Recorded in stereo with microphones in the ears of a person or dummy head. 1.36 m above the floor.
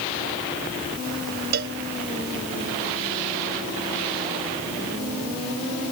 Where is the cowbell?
55° right (ahead or behind).